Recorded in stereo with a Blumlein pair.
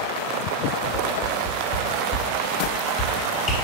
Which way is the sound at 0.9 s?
25° left.